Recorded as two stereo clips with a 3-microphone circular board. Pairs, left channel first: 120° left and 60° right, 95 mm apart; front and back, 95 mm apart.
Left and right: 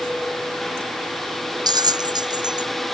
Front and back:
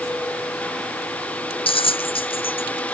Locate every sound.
1.7 s a bell: 15° right